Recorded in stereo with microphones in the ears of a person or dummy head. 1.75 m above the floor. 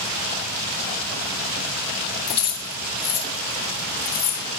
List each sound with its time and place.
2.3 s keys jangling: 20° left (ahead or behind), 1.3 m